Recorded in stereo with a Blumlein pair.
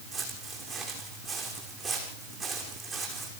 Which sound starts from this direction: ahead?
Footsteps, at 0.1 s.